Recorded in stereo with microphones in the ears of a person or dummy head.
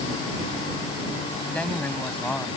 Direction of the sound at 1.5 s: 5° left (ahead or behind).